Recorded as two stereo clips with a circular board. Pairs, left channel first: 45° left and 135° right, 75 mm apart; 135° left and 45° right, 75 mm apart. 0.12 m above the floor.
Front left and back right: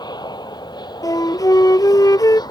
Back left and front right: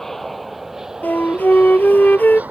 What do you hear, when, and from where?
0.0 s an aircraft: 50° left; by 2.5 s 20° left
1.0 s a flute: 70° left